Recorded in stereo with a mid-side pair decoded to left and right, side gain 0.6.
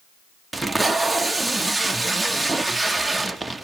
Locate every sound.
0.5 s tape being pulled: 10° right, 1.2 m